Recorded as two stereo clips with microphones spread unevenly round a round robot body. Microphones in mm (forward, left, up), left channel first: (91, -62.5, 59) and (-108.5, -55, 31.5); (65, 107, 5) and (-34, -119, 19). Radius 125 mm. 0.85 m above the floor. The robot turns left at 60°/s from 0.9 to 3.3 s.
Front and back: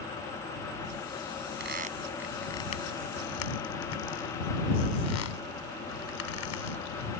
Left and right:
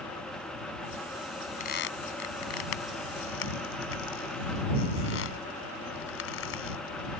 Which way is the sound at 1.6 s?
130° left.